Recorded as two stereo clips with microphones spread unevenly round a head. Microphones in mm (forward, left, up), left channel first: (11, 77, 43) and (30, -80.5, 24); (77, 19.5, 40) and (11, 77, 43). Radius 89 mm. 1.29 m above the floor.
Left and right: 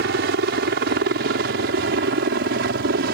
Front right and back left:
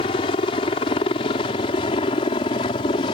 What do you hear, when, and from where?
0.0 s a helicopter: 75° right